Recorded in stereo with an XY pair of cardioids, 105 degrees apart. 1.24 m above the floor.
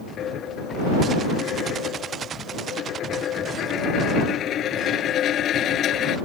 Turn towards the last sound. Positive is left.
turn(degrees=65)